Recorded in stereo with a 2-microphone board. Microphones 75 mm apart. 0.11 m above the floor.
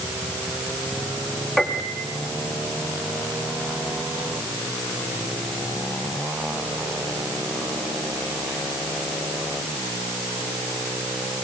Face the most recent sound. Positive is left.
turn(degrees=0)  # may be behind; listen again after turning